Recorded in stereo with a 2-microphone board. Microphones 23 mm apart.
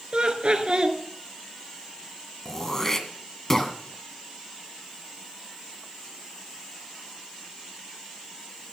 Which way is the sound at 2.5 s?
20° left (ahead or behind).